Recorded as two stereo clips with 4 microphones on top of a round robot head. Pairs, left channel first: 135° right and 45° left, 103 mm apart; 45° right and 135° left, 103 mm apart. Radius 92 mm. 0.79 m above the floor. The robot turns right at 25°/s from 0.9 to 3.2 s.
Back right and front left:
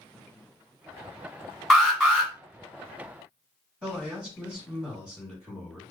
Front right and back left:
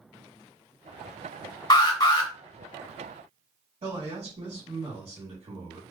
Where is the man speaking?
135° left, 1.6 m.